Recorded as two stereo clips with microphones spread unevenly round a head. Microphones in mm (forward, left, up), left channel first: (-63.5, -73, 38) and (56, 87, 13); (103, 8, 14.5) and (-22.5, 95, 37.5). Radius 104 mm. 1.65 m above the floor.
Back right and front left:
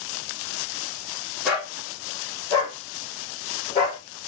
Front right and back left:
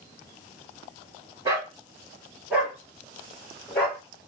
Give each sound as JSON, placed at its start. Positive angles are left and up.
{"t": 1.4, "sound": "a dog barking", "azimuth_deg": 155, "distance_m": 1.5}